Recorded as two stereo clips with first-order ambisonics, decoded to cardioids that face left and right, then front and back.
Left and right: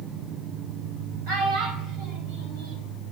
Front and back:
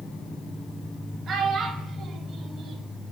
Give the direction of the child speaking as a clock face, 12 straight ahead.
4 o'clock.